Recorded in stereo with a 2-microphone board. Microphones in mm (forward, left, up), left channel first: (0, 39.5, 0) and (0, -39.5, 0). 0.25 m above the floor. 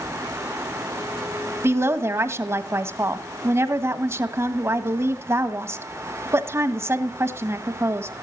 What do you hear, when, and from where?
1.6 s a woman speaking: 35° right (ahead or behind), 1.4 m